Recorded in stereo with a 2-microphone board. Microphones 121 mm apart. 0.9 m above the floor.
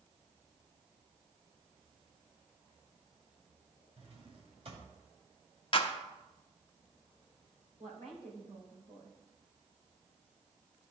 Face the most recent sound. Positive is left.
turn(degrees=-65)  # may be behind; listen again after turning